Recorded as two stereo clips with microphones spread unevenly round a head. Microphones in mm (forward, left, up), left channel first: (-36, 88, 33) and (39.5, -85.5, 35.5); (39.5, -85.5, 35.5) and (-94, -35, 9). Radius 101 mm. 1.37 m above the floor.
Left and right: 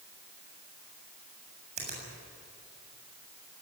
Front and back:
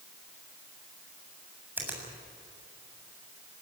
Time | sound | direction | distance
1.8 | a finger snap | 120° right | 7.5 m